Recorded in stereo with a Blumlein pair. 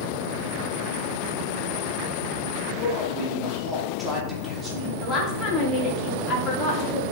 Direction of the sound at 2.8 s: 15° right.